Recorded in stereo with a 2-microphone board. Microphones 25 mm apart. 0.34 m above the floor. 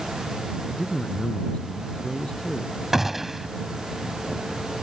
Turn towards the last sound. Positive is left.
turn(degrees=-10)  # may be behind; listen again after turning